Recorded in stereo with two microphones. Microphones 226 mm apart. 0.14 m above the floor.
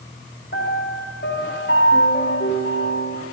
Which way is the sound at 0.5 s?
50° left (ahead or behind).